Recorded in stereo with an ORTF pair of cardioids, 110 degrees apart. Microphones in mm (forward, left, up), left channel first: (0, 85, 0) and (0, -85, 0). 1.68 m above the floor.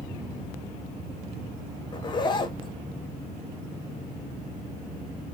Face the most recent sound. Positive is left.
turn(degrees=30)